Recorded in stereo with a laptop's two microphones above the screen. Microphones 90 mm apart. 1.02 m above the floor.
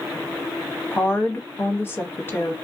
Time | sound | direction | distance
0.9 | a woman speaking | 25° left (ahead or behind) | 0.9 m